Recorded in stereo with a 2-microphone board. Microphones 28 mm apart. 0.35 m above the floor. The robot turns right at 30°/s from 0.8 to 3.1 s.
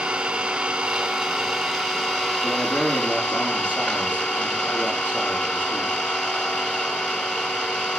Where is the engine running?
25° right, 3.5 m; by 8.0 s 45° left, 3.5 m.